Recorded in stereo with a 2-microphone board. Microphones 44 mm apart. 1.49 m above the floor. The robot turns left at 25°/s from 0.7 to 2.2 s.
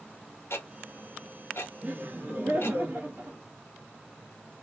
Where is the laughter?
35° right (ahead or behind), 1.0 m; by 3.4 s 45° right (ahead or behind), 1.0 m.